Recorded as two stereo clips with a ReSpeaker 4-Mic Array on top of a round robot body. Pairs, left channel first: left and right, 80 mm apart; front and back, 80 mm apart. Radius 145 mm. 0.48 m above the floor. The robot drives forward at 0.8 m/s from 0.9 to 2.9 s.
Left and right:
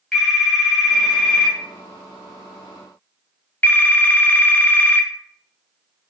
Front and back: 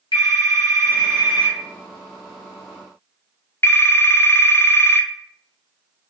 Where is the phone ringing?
5° left, 2 m; by 5.1 s 40° left, 0.8 m.